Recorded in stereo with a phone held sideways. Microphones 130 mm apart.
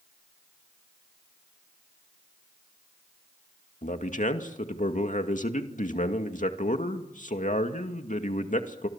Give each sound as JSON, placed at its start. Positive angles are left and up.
{"t": 3.8, "sound": "a man speaking", "side_deg": 80, "distance_m": 2.0}